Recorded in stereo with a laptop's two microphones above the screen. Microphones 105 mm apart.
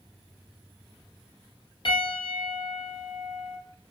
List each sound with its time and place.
1.9 s a piano: 50° left (ahead or behind), 1.3 m